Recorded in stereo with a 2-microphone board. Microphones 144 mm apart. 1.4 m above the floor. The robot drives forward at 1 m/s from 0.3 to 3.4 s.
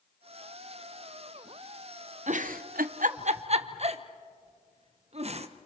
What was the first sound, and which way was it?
A giggle, 55° right (ahead or behind).